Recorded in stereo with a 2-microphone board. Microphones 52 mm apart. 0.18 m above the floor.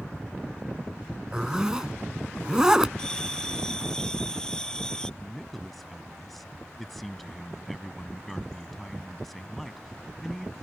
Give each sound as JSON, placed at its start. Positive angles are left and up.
{"t": 1.3, "sound": "a zipper", "side_deg": -15}
{"t": 3.0, "sound": "a bell", "side_deg": 15}
{"t": 5.2, "sound": "a man speaking", "side_deg": 0}